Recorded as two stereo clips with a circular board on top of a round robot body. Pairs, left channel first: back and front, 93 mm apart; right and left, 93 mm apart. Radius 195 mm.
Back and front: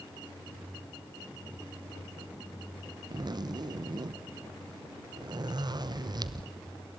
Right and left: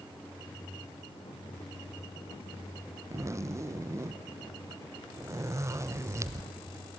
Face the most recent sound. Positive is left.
turn(degrees=35)